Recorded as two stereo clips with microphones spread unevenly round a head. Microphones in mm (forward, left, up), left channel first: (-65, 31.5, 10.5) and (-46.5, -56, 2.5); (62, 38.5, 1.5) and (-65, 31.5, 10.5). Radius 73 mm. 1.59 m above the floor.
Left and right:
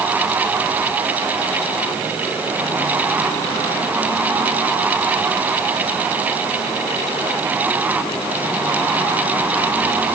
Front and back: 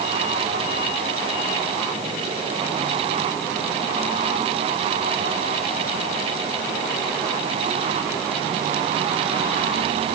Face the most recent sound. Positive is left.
No sound to turn to.